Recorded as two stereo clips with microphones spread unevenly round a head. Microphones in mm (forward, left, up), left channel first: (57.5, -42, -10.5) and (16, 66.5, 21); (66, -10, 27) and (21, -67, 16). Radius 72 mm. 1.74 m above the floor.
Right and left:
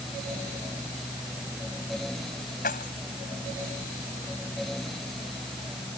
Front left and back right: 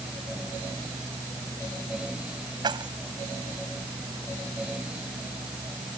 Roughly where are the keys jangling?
Right.